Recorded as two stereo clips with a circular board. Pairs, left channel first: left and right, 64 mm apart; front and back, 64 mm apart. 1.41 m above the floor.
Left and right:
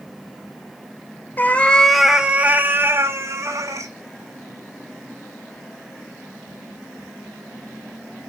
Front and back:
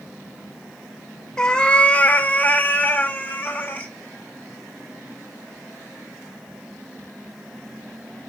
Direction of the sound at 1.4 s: 65° left.